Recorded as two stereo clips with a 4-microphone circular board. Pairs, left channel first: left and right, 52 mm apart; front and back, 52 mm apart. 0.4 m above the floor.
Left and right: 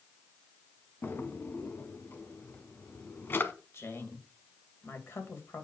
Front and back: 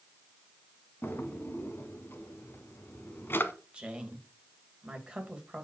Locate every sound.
1.0 s a drawer: 40° left, 1.1 m
3.7 s a woman speaking: 110° left, 2 m